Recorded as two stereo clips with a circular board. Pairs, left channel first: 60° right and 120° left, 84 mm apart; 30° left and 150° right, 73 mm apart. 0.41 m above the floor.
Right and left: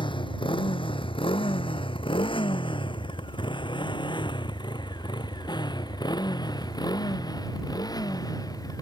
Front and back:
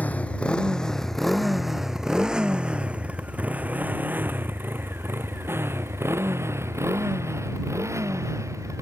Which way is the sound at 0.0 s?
40° right.